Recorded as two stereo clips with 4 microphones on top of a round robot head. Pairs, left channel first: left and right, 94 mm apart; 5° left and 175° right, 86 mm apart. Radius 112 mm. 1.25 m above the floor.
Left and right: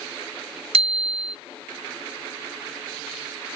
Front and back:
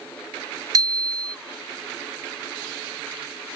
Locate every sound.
0.7 s a bicycle bell: 120° right